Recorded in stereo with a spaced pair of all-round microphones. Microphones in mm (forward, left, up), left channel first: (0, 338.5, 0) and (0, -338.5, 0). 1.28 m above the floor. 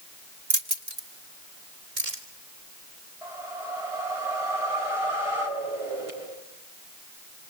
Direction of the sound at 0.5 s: 70° right (ahead or behind).